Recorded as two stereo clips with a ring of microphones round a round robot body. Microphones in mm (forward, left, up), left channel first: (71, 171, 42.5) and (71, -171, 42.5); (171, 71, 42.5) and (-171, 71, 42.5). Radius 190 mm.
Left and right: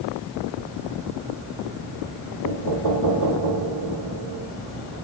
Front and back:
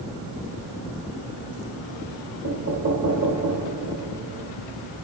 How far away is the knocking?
About 2.5 m.